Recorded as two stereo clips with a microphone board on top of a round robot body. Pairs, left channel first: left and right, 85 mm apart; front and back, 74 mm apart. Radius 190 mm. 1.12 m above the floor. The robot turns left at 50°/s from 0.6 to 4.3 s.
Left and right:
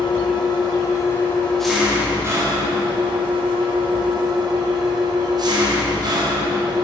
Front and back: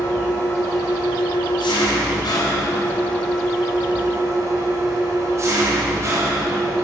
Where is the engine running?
55° left, 2 m; by 6.8 s 130° right, 2 m.